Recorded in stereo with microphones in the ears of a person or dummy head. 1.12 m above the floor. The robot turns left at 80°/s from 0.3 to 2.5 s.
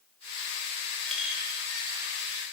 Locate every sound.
1.1 s a clink: 10° left (ahead or behind), 1.8 m; by 2.4 s 75° right (ahead or behind), 1.8 m